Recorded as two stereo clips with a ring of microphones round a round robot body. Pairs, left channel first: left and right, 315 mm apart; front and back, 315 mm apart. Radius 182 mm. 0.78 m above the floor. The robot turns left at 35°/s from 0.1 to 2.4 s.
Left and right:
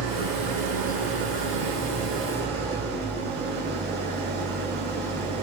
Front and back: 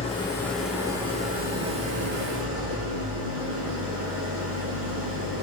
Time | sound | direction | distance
0.0 | an engine running | 70° right | 9.5 m